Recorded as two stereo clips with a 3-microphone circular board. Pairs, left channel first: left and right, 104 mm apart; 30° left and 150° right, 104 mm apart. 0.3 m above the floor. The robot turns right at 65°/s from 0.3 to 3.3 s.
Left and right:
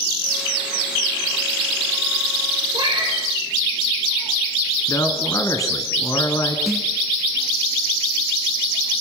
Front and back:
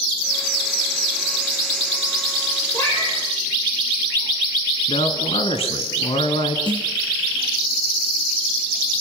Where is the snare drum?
175° right, 4 m.